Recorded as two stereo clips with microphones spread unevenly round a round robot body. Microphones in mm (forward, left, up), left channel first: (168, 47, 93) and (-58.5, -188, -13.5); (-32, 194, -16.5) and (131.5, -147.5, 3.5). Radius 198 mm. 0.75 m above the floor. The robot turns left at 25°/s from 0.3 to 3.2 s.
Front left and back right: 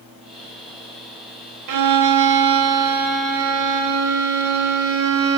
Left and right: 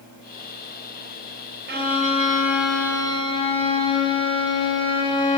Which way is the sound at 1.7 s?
130° right.